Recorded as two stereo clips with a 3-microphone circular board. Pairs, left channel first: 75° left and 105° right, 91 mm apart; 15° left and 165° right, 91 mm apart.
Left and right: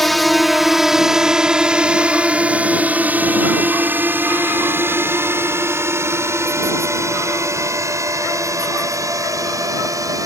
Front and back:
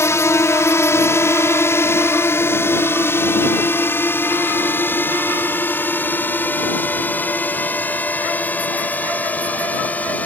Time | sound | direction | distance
0.0 | a drone | 10° right | ?